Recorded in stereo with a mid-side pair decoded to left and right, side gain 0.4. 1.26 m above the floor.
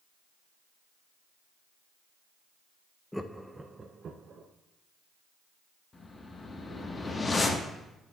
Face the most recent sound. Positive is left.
turn(degrees=30)